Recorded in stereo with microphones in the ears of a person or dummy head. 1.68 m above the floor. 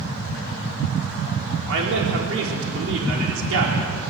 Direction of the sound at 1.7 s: 80° right.